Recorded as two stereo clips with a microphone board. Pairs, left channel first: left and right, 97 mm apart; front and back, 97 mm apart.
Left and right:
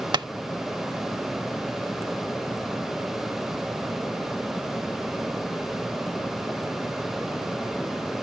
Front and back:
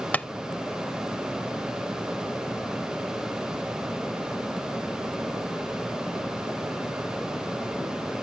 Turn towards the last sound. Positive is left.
turn(degrees=-70)